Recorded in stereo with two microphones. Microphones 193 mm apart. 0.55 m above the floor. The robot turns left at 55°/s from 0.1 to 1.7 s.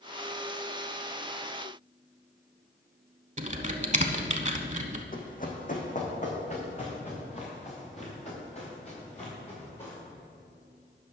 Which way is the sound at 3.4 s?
40° right (ahead or behind).